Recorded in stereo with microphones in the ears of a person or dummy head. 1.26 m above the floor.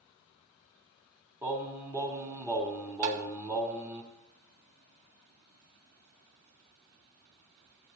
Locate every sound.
1.4 s singing: 20° right (ahead or behind), 2.5 m
3.0 s tapping: 45° right (ahead or behind), 1.6 m